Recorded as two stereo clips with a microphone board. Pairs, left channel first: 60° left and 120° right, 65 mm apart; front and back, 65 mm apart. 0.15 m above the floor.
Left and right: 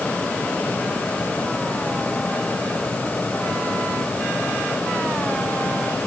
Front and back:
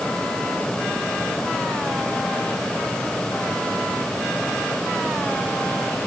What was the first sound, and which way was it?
Only background noise.